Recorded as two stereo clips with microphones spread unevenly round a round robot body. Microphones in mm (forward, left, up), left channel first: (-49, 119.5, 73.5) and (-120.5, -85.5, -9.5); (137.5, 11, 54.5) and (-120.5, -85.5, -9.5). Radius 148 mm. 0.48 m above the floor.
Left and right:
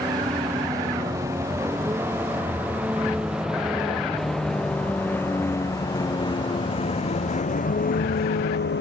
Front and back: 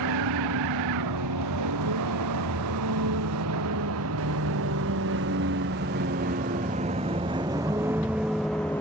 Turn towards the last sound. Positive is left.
turn(degrees=105)